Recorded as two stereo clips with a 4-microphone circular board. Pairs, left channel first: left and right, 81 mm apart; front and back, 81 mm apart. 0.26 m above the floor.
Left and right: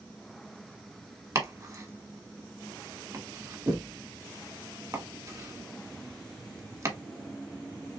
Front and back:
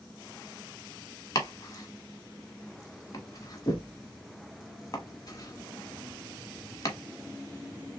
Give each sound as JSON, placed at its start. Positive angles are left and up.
{"t": 1.4, "sound": "chopping", "azimuth_deg": -45, "distance_m": 1.4}